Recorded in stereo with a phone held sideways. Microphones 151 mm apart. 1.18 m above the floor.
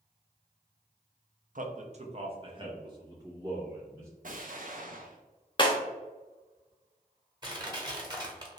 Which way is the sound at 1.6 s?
60° right (ahead or behind).